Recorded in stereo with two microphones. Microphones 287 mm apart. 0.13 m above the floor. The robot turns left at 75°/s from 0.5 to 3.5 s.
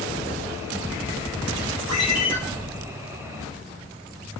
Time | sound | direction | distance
1.9 | a ringtone | 80° right | 2.0 m